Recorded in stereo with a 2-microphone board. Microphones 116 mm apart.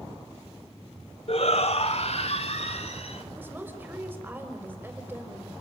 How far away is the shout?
About 1.1 m.